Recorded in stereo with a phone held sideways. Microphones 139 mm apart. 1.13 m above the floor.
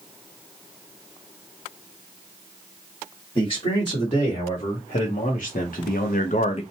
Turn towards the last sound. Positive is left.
turn(degrees=45)  # may be behind; listen again after turning